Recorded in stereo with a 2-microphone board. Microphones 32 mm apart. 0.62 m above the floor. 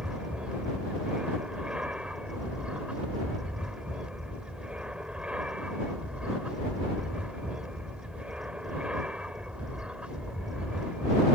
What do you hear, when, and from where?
0.0 s an aircraft: 35° right (ahead or behind)